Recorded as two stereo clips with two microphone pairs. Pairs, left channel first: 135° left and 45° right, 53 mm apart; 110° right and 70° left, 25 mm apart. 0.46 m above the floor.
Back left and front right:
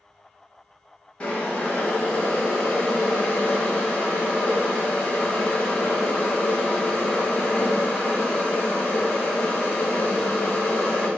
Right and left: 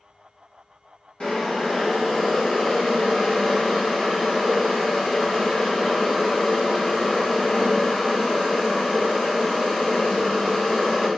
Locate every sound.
1.2 s boiling: 160° right, 1.4 m